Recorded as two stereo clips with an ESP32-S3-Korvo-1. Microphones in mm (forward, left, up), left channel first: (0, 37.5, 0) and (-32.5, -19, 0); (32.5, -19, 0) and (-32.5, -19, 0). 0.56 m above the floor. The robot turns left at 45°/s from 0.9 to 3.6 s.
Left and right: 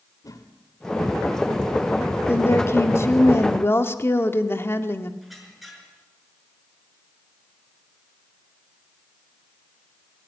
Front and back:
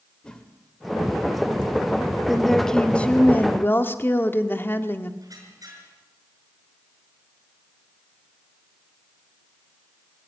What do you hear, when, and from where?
0.2 s a whoosh: 75° left, 2.5 m
2.3 s a woman speaking: 95° left, 1.5 m; by 5.1 s 35° left, 1.5 m
5.2 s a squeak: 150° left, 6.5 m